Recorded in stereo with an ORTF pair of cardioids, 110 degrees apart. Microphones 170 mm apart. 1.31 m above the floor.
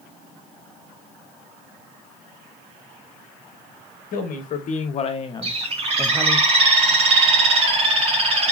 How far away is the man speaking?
About 1.2 m.